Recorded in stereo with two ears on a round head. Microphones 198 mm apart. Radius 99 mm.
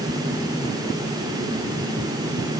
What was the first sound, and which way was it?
Only background noise.